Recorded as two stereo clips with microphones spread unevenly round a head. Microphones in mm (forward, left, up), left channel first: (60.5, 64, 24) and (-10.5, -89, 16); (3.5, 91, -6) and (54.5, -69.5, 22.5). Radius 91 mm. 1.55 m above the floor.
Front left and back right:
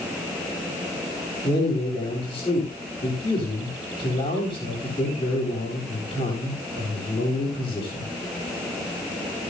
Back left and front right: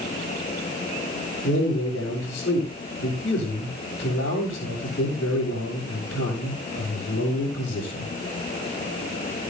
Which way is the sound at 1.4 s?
130° left.